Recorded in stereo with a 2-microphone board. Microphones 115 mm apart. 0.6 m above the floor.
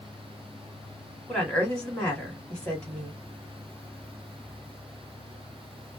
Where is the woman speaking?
10° left (ahead or behind), 1.5 m.